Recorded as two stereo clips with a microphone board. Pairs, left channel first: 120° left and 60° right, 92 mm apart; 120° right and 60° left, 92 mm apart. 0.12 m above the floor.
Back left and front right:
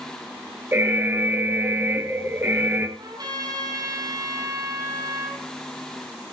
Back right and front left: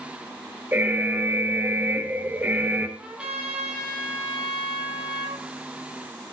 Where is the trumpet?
20° right, 3.5 m.